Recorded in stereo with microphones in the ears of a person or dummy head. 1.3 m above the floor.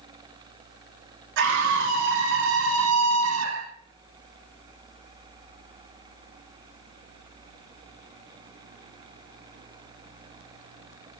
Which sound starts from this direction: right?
A scream, at 1.4 s.